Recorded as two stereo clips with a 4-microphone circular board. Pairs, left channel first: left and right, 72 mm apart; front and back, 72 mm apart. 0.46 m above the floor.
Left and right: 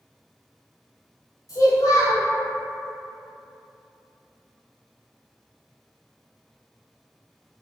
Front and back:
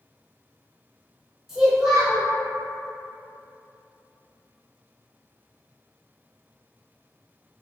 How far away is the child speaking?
About 1.1 m.